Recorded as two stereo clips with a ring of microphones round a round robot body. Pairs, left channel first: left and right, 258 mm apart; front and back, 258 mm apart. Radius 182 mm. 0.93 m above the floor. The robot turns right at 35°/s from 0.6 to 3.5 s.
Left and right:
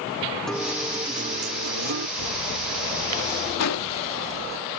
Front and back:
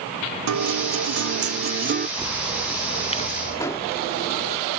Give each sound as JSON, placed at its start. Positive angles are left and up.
{"t": 0.5, "sound": "a guitar", "azimuth_deg": 180}
{"t": 2.2, "sound": "a bird", "azimuth_deg": -100}
{"t": 3.6, "sound": "an explosion", "azimuth_deg": 80}